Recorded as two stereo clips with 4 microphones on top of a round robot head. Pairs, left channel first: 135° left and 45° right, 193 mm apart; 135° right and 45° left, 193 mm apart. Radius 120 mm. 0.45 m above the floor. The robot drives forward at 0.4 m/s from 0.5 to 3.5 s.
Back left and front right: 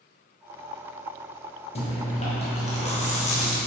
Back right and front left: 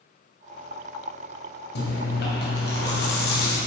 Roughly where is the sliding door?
I don't hear a sliding door.